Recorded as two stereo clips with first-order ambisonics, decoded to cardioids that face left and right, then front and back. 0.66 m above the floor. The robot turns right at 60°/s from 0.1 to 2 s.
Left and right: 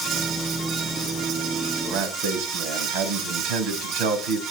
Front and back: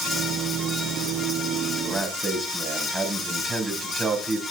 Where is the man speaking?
115° right, 3.5 m; by 4.4 s 100° right, 3.5 m.